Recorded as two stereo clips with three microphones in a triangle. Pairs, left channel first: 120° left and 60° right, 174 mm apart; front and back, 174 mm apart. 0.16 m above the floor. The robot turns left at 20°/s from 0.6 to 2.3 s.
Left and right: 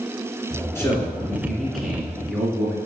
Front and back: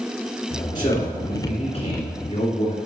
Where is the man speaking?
50° left, 2 m; by 2.8 s 20° left, 2 m.